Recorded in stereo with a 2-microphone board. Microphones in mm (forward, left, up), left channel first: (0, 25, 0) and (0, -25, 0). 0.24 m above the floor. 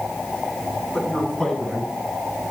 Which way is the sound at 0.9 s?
20° left (ahead or behind).